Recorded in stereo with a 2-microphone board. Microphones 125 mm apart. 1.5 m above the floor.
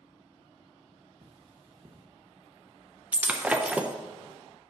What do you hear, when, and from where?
1.2 s cutlery clinking: 40° right (ahead or behind), 1.0 m
3.1 s breaking glass: 10° right (ahead or behind), 0.6 m